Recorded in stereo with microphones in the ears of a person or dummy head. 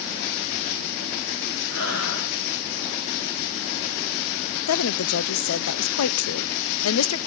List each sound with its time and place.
1.7 s breathing: 60° left (ahead or behind), 8.5 m
4.7 s a woman speaking: 80° left, 0.9 m